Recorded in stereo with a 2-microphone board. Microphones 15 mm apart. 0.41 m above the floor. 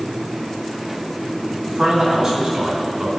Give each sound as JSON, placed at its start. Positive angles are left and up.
{"t": 1.7, "sound": "a man speaking", "side_deg": -60, "distance_m": 3.5}